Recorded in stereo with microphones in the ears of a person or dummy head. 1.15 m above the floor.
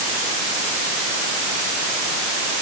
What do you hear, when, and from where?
Only background noise.